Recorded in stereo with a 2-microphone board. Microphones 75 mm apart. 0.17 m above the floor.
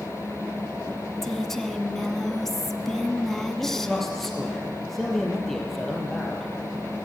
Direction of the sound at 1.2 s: 5° left (ahead or behind).